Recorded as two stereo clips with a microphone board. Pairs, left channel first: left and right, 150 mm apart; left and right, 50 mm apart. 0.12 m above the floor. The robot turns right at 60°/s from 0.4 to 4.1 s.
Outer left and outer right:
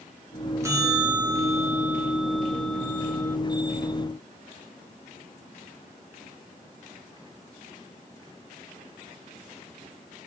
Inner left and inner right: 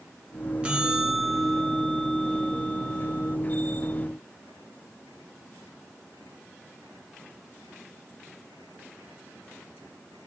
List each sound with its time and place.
0.6 s a bell: 20° right (ahead or behind), 1.0 m; by 3.4 s 15° left (ahead or behind), 1.0 m